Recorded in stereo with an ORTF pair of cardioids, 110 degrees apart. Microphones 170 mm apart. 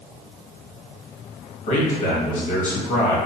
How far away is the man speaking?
About 1.3 m.